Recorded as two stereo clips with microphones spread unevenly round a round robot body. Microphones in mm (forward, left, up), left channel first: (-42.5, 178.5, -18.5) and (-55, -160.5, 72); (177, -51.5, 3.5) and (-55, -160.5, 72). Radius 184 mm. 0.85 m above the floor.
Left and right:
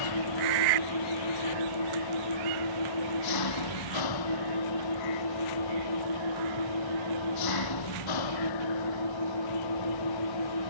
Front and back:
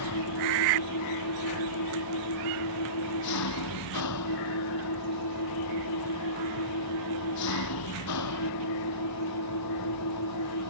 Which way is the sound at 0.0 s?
60° left.